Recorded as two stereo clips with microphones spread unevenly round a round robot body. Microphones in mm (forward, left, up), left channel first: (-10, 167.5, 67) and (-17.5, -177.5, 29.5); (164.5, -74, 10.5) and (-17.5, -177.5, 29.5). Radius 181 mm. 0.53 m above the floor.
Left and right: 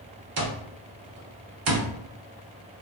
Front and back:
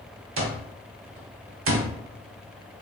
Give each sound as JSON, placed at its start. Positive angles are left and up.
{"t": 0.4, "sound": "an alarm clock", "azimuth_deg": -135, "distance_m": 1.0}